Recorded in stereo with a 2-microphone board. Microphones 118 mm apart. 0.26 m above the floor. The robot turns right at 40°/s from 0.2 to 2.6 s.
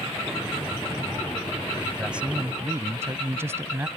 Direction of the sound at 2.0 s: 5° right (ahead or behind).